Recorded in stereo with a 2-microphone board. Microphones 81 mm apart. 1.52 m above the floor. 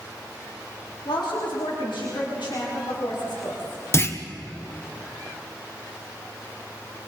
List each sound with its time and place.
1.1 s a woman speaking: 85° left, 3.5 m; by 3.8 s 80° left, 5.5 m
3.9 s a clunk: 30° left (ahead or behind), 1.0 m